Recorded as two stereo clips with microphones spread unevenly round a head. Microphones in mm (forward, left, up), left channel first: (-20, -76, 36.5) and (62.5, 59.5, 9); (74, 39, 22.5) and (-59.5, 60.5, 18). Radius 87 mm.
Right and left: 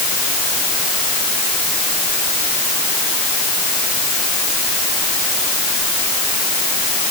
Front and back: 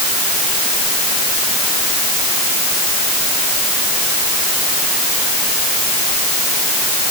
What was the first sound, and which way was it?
Only background noise.